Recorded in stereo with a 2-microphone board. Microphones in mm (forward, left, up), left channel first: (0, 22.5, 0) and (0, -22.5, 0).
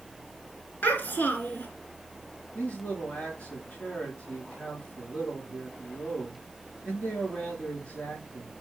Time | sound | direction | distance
0.8 | a child speaking | 40° left (ahead or behind) | 2.5 m
2.5 | a man speaking | 30° left (ahead or behind) | 4.5 m